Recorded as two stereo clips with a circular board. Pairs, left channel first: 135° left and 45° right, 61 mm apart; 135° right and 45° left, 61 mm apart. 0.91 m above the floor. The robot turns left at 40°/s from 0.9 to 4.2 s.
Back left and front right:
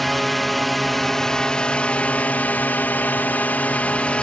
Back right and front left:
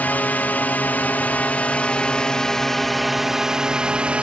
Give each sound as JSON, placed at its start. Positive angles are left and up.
{"t": 0.0, "sound": "a drone", "azimuth_deg": -140}